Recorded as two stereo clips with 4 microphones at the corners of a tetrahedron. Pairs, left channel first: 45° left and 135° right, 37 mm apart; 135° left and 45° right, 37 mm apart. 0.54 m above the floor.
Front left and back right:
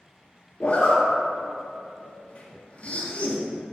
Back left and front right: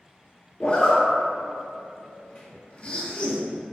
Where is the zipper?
90° left, 0.7 m.